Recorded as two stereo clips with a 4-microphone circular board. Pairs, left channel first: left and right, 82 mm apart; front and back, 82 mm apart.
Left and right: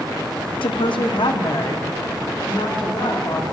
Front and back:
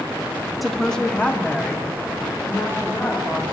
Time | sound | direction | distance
0.6 | a woman speaking | 90° left | 0.7 m